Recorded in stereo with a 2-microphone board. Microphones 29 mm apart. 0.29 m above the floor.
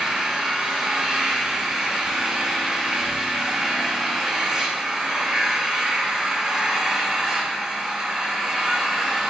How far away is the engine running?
About 6 m.